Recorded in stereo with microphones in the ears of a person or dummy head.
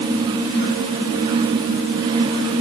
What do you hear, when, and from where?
Only background noise.